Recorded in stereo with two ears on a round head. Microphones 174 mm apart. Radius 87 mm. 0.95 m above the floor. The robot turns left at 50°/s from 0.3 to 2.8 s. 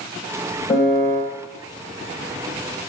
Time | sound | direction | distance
0.7 | a piano | 15° left (ahead or behind) | 3 m